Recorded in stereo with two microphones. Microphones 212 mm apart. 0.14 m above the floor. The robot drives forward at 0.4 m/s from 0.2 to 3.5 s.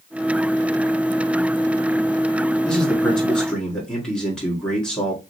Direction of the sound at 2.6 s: 5° left (ahead or behind).